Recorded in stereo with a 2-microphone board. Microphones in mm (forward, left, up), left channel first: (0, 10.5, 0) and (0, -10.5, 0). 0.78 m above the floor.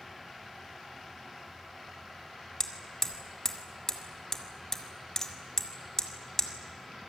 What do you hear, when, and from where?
2.6 s hammering: 25° left (ahead or behind), 2 m